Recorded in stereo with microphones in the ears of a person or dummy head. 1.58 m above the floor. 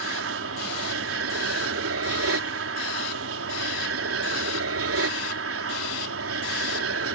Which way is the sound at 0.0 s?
70° right (ahead or behind).